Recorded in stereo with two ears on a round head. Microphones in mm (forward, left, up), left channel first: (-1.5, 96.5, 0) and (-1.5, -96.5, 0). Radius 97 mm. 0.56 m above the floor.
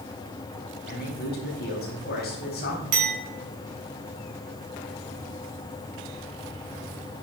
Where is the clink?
80° right, 4 m.